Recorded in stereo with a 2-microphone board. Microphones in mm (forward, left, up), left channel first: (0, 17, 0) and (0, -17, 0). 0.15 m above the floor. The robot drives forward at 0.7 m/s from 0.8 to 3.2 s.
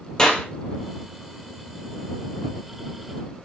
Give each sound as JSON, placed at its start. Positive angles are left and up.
{"t": 0.2, "sound": "a clap", "side_deg": 25, "distance_m": 3.0}